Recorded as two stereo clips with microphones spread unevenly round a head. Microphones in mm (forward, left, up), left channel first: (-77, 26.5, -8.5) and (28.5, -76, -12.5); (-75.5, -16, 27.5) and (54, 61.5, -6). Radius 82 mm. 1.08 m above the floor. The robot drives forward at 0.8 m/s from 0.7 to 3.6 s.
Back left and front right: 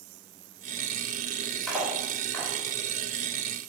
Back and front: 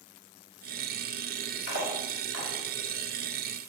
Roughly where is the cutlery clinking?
Behind right.